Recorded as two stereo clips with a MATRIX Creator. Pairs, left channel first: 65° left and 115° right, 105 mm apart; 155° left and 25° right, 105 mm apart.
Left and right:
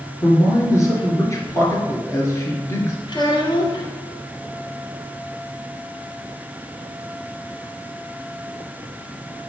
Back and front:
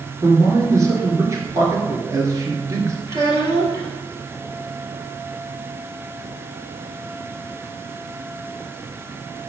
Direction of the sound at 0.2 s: 20° left.